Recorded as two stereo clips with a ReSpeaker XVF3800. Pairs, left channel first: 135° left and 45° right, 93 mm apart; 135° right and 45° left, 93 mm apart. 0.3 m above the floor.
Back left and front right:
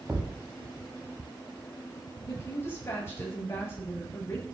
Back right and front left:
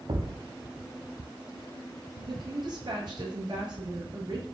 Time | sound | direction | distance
0.1 | a thud | 25° left | 2.5 m
2.2 | a woman speaking | 75° left | 6 m